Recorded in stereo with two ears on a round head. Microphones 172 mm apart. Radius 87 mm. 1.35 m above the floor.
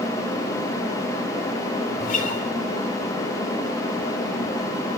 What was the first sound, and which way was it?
A guitar, 45° left (ahead or behind).